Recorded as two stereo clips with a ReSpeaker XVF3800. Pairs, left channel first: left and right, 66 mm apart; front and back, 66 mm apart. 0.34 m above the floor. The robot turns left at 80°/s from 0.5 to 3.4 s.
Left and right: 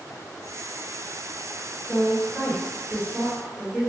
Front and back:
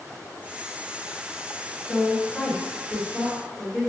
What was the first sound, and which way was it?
A woman speaking, 25° right.